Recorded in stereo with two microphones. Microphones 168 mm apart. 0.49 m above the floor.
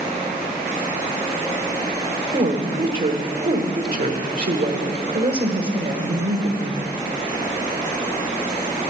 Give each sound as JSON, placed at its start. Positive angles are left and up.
{"t": 2.3, "sound": "a woman speaking", "side_deg": -60, "distance_m": 1.4}